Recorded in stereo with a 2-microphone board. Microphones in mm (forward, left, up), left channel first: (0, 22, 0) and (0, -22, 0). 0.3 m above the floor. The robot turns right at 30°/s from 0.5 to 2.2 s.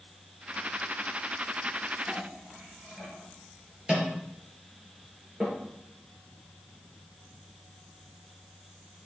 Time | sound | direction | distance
2.1 | a clink | 25° right (ahead or behind) | 3 m